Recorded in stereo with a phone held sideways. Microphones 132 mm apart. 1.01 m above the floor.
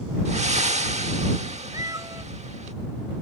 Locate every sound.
0.2 s breathing: 60° right (ahead or behind)
1.7 s a cat meowing: 25° right (ahead or behind)